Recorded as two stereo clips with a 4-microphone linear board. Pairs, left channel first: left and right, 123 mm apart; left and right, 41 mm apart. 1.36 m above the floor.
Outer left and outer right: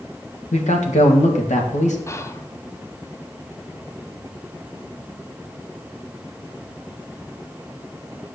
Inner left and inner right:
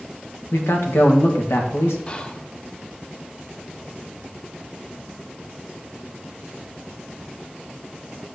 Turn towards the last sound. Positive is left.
turn(degrees=25)  # may be behind; listen again after turning